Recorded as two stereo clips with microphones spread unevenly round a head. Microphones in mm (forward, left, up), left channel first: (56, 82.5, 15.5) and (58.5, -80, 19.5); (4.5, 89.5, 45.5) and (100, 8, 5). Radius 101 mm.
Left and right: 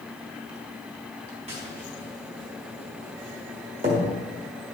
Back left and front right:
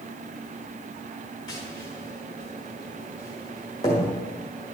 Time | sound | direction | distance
1.5 | tapping | 145° right | 1.6 m